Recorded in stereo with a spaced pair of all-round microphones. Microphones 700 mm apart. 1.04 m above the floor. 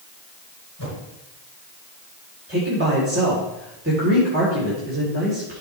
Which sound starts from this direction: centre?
A man speaking, at 2.5 s.